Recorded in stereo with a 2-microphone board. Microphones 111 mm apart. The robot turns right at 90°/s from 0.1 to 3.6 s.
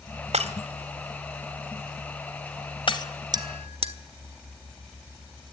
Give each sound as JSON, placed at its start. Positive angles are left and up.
{"t": 0.3, "sound": "breaking glass", "side_deg": -70, "distance_m": 1.5}
{"t": 3.3, "sound": "a bell", "side_deg": -35, "distance_m": 1.1}